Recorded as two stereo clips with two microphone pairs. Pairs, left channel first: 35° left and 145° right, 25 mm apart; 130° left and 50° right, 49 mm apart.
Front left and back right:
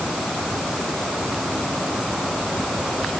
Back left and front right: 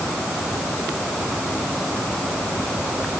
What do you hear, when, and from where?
Only background noise.